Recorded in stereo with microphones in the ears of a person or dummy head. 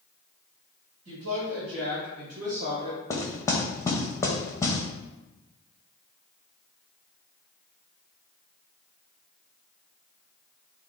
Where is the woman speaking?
65° right (ahead or behind), 1.6 m; by 3.0 s 15° right (ahead or behind), 0.7 m.